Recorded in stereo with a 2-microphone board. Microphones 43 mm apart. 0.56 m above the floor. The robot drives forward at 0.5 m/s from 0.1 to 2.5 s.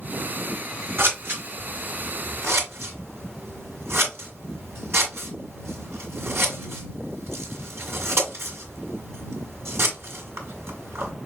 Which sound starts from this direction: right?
Scissors, at 1.0 s.